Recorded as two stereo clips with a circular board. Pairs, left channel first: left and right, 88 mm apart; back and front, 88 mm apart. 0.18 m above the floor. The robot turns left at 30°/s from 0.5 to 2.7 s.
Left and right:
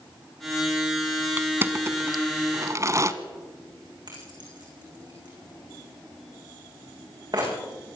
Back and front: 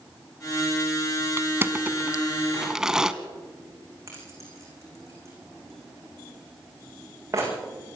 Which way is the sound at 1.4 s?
40° right.